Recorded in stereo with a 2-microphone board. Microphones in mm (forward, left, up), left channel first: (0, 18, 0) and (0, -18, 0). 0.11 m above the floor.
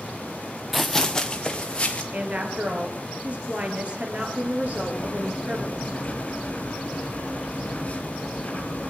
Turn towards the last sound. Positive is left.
turn(degrees=40)  # may be behind; listen again after turning